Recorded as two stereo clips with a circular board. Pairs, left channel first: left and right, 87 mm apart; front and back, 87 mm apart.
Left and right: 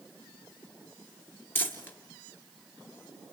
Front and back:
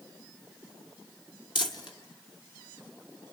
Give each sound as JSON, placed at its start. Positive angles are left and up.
{"t": 1.6, "sound": "crumpling", "azimuth_deg": 25, "distance_m": 1.3}